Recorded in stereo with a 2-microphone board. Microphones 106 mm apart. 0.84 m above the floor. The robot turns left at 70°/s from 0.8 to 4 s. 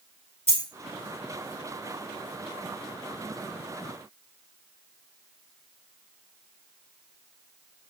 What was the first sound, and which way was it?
A dropped coin, 15° right (ahead or behind).